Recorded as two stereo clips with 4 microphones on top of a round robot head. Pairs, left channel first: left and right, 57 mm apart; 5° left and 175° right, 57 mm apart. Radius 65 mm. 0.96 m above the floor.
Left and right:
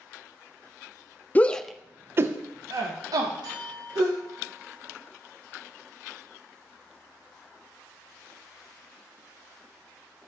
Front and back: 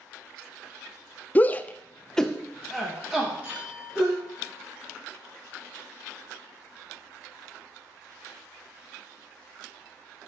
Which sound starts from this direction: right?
A clink, at 3.4 s.